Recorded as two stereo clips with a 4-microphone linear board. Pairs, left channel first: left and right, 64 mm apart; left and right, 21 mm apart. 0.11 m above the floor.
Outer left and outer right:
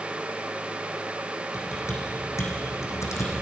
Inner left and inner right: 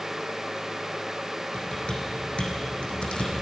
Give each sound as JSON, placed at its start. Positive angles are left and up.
{"t": 1.5, "sound": "typing on a keyboard", "side_deg": 50, "distance_m": 3.5}